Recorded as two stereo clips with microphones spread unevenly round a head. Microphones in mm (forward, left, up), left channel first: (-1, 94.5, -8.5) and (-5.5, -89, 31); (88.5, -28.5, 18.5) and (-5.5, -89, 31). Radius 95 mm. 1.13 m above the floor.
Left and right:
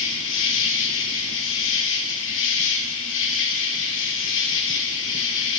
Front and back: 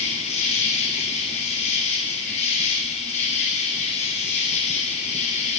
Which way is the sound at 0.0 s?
75° left.